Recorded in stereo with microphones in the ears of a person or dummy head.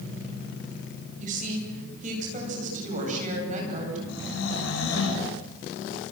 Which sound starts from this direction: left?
Snoring, at 4.1 s.